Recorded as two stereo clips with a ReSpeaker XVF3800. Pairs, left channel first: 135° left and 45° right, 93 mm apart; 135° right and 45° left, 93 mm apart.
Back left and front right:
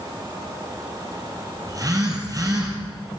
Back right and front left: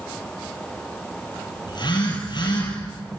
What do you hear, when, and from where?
1.7 s a phone buzzing: 95° right, 7.5 m